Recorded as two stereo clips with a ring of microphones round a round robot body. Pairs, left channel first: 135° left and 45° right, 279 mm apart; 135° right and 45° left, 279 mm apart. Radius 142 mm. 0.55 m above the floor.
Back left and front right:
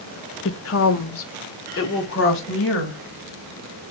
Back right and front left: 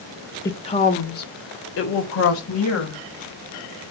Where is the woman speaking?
150° left, 1.0 m; by 3.0 s 175° right, 3 m.